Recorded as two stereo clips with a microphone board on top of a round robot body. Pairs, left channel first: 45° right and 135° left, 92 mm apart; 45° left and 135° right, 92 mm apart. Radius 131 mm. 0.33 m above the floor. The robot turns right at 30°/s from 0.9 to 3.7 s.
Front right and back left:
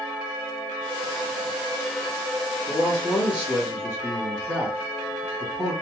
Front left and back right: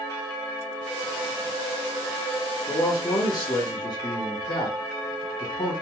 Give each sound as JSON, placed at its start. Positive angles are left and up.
{"t": 2.7, "sound": "a man speaking", "azimuth_deg": 5, "distance_m": 1.2}